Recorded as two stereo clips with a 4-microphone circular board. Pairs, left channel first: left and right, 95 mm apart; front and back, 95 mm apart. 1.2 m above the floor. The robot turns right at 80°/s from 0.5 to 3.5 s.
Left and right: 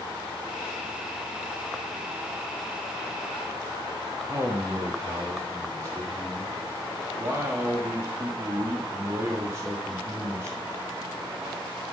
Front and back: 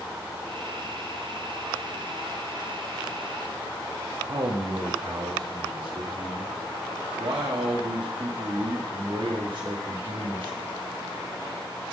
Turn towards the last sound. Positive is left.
turn(degrees=-150)